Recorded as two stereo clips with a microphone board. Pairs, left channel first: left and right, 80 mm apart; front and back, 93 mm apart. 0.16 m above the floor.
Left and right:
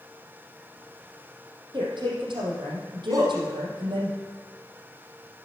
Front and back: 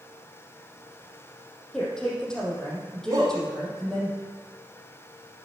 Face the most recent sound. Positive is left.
turn(degrees=-130)